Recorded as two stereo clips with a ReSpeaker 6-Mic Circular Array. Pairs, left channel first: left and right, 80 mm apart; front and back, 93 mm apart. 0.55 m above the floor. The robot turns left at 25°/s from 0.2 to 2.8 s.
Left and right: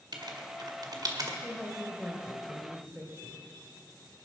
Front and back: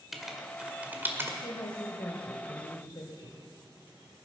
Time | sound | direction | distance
0.1 | writing | 95° right | 1.7 m
1.4 | a woman speaking | 10° left | 2 m